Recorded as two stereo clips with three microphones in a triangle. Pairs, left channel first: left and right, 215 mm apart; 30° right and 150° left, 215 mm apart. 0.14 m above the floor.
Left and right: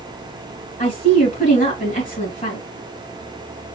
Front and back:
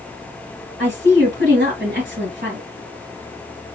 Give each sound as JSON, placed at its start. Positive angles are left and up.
{"t": 0.8, "sound": "a woman speaking", "azimuth_deg": 130, "distance_m": 2.5}